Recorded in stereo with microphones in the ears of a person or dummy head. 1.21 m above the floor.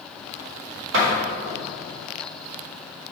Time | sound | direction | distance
0.9 | a door slam | 75° right (ahead or behind) | 2.5 m